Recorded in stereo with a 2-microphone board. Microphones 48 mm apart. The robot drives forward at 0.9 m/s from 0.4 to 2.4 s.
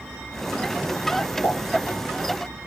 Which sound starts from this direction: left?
A pop, at 1.4 s.